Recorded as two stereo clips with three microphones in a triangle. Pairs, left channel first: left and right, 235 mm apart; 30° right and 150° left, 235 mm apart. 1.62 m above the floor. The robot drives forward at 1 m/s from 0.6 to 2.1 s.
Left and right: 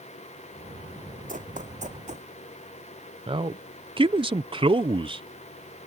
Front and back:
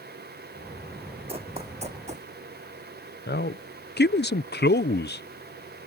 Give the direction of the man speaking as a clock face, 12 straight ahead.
1 o'clock.